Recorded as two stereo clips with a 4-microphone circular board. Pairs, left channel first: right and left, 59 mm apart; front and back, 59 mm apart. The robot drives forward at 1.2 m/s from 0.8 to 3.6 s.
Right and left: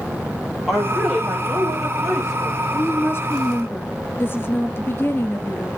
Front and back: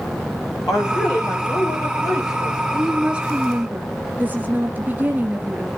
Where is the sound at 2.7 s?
100° right, 2 m; by 5.7 s 130° right, 2.5 m.